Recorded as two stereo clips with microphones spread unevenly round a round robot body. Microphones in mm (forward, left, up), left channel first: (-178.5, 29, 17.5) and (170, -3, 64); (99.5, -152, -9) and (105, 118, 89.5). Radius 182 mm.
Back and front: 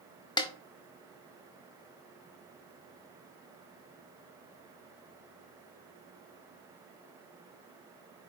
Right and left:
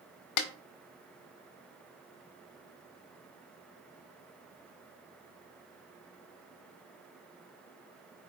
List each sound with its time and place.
0.4 s a snare drum: 105° right, 1.2 m